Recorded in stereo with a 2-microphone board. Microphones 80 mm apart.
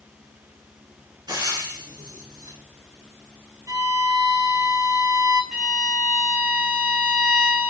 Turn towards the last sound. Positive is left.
turn(degrees=-10)  # may be behind; listen again after turning